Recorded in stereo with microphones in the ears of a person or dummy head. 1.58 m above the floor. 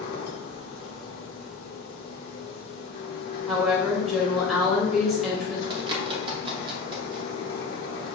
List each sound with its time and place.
0.0 s a machine running: 70° left (ahead or behind), 1.1 m
3.5 s a woman speaking: 10° right (ahead or behind), 1.4 m
5.7 s a bird: 20° right (ahead or behind), 0.8 m